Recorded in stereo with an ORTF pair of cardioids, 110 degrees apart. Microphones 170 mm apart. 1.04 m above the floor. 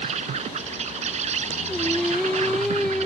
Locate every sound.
0.0 s an insect: 45° right
1.7 s singing: 5° left